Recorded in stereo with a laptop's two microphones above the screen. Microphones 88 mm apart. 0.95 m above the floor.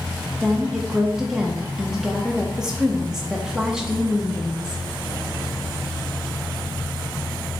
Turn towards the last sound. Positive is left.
turn(degrees=-5)  # may be behind; listen again after turning